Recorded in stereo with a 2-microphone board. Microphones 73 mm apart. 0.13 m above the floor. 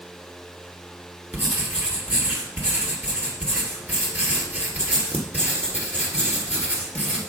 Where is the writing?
25° right (ahead or behind), 2.5 m.